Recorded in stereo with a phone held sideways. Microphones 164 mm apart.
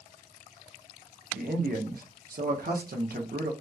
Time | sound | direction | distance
1.3 | a man speaking | 65° right (ahead or behind) | 0.6 m